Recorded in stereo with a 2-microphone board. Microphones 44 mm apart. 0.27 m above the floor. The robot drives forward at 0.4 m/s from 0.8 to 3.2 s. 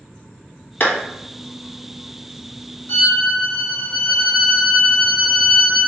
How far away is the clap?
About 1.4 m.